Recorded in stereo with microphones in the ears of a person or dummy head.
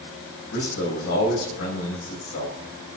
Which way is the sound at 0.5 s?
75° left (ahead or behind).